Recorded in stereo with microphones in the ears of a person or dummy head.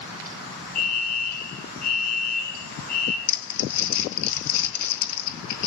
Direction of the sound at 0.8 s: 45° left (ahead or behind).